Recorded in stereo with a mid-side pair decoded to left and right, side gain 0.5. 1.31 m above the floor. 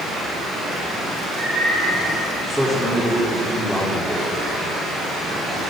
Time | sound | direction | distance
2.5 | a man speaking | straight ahead | 4 m